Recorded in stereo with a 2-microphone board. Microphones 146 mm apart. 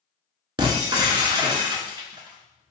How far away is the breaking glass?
About 0.7 m.